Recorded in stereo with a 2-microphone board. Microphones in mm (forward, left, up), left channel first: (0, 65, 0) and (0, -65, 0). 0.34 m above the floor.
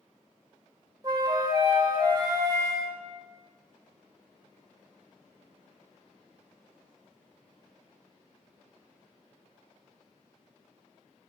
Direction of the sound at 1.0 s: 30° right (ahead or behind).